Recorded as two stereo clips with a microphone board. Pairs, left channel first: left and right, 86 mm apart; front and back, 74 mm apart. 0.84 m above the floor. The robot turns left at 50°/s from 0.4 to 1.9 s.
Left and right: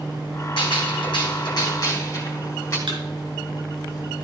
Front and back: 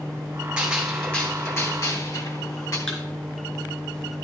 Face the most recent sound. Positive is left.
turn(degrees=-75)